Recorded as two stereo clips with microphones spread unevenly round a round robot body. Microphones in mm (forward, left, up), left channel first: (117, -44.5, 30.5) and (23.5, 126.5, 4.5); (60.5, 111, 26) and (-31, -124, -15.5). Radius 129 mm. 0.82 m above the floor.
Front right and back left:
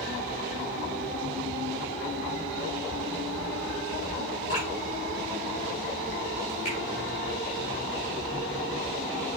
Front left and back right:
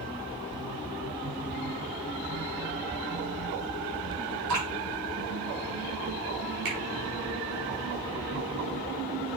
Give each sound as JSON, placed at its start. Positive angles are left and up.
{"t": 4.5, "sound": "dripping", "azimuth_deg": -120, "distance_m": 5.5}
{"t": 6.7, "sound": "a finger snap", "azimuth_deg": -125, "distance_m": 5.0}